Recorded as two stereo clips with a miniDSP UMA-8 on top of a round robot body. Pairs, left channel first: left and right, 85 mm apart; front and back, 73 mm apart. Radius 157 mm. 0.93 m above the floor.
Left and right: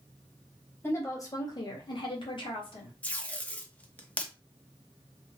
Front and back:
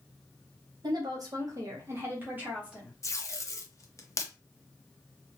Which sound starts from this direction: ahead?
Tape being pulled, at 3.0 s.